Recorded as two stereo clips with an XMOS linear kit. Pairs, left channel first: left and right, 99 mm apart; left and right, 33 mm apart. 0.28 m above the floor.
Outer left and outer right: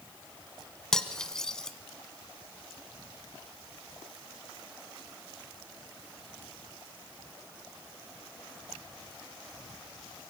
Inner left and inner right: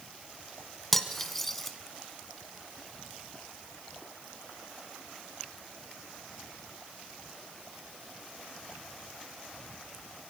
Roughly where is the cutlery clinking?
Centre.